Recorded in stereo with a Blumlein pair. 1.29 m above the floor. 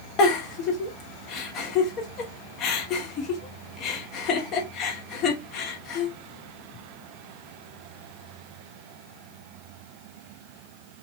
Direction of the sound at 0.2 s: 35° left.